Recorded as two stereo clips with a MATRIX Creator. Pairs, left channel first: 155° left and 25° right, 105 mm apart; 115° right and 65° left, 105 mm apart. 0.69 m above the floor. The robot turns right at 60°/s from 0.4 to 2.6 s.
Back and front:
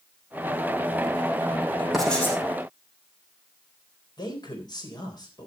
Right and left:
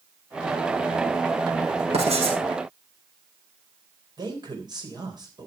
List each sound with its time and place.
1.9 s writing: 65° left, 5 m; by 2.4 s 90° left, 5 m
4.2 s a man speaking: 110° left, 3.5 m